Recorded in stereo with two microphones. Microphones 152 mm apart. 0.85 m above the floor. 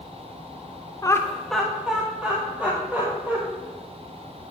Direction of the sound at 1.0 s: 25° left (ahead or behind).